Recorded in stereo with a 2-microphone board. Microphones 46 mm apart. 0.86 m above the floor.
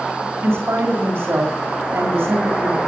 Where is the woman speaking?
70° right (ahead or behind), 2.0 m.